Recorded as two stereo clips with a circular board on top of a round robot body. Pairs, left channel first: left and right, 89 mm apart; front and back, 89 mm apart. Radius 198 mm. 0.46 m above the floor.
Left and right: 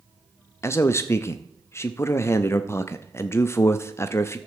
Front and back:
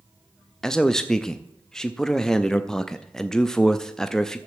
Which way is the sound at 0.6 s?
80° left.